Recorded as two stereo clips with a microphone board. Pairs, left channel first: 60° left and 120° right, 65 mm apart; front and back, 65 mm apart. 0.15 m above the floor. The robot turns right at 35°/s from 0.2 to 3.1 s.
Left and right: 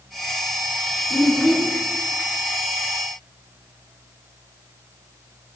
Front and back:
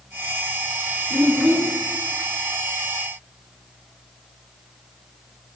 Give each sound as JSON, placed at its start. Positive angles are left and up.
{"t": 1.1, "sound": "a child speaking", "azimuth_deg": 140, "distance_m": 0.7}